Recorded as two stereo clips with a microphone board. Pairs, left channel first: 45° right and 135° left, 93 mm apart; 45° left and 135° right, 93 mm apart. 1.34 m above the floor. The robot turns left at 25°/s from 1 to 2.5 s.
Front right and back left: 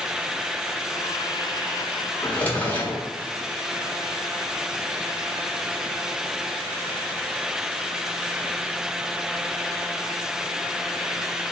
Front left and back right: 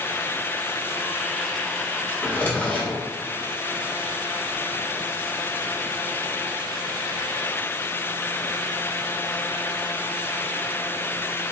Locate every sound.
2.2 s a drawer: 10° left, 1.0 m; by 3.0 s straight ahead, 1.0 m